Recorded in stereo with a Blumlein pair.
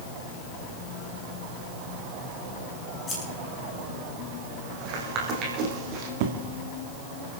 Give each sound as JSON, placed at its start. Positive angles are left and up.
{"t": 3.1, "sound": "scissors", "azimuth_deg": 15, "distance_m": 6.5}
{"t": 4.8, "sound": "footsteps", "azimuth_deg": -35, "distance_m": 4.0}
{"t": 6.2, "sound": "an explosion", "azimuth_deg": -50, "distance_m": 1.8}